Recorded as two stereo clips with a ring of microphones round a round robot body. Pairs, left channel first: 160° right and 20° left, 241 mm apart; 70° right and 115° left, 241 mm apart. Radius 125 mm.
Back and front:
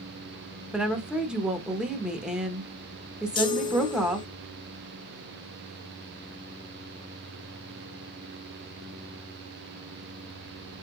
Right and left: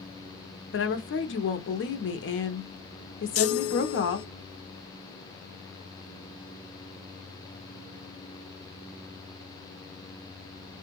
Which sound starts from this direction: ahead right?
A woman speaking, at 0.7 s.